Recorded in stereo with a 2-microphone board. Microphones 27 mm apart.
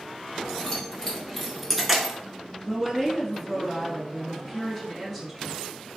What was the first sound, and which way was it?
Keys jangling, 20° left (ahead or behind).